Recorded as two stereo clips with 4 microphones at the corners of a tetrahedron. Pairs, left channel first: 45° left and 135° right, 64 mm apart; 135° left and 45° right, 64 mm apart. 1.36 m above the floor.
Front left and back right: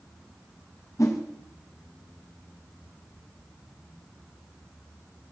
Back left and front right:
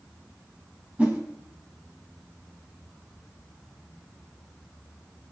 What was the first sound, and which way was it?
A whoosh, 20° left.